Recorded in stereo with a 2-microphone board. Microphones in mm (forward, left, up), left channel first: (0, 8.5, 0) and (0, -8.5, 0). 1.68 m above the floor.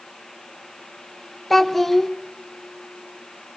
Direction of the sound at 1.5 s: 10° left (ahead or behind).